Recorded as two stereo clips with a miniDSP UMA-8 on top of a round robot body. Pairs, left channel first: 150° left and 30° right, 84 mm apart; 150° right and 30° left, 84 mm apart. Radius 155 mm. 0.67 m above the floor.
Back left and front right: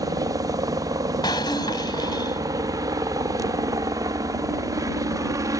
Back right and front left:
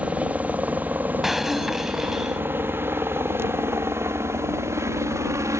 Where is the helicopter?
40° right; by 5.6 s 5° right.